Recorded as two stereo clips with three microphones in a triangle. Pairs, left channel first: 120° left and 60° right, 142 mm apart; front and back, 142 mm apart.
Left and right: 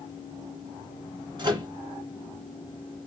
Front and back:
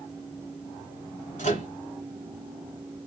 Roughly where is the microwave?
Ahead.